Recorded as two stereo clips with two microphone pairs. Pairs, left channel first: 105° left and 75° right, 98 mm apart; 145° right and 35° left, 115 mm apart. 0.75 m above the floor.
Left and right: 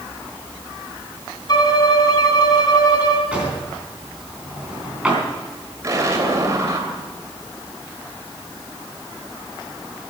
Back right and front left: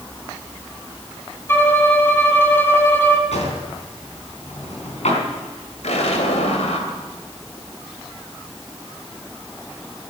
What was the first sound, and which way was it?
A violin, 150° left.